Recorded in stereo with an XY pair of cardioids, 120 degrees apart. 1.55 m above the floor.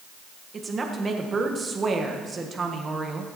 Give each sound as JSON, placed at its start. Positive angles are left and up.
{"t": 0.5, "sound": "a woman speaking", "azimuth_deg": -30, "distance_m": 1.4}